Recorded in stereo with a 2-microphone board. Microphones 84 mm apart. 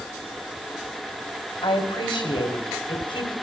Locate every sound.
1.6 s a woman speaking: 75° left (ahead or behind), 3.5 m